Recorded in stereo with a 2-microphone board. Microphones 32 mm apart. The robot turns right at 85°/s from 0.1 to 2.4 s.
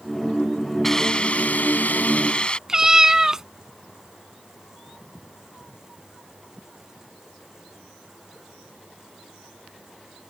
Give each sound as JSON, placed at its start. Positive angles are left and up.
{"t": 0.8, "sound": "a hiss", "azimuth_deg": 10}
{"t": 2.7, "sound": "a cat meowing", "side_deg": -20}